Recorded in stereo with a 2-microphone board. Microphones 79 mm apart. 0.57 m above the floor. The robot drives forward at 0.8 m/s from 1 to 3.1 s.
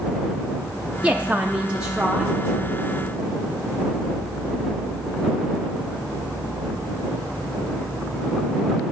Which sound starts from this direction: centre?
A woman speaking, at 1.0 s.